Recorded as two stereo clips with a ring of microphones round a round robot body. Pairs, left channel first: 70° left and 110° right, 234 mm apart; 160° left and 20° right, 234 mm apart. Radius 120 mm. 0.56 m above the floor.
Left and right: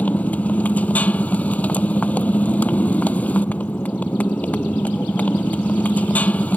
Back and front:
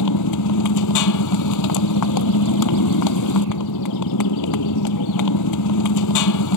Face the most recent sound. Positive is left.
turn(degrees=150)